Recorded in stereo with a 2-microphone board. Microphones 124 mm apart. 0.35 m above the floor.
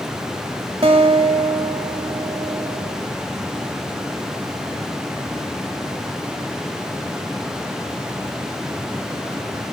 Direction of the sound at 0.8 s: 50° right (ahead or behind).